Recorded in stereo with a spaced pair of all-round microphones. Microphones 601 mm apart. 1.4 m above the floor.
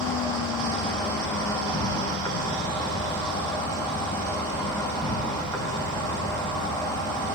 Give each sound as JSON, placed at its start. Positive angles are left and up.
{"t": 0.0, "sound": "an insect", "side_deg": 5, "distance_m": 1.4}